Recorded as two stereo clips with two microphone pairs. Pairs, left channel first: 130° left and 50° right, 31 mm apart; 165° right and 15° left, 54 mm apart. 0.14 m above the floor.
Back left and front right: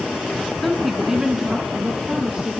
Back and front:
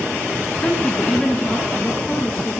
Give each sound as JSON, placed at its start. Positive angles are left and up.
{"t": 0.6, "sound": "a woman speaking", "azimuth_deg": -150, "distance_m": 1.1}